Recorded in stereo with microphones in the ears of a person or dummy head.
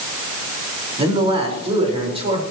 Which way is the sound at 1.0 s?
30° right (ahead or behind).